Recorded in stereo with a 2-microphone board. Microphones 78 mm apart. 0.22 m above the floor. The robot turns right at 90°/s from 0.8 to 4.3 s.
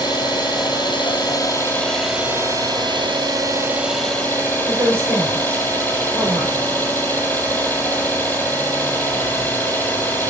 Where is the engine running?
65° left, 5.5 m; by 10.3 s 20° left, 5.5 m.